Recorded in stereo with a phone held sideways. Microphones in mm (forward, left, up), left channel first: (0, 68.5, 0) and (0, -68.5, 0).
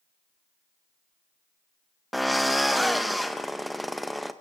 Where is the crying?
No crying in this recording.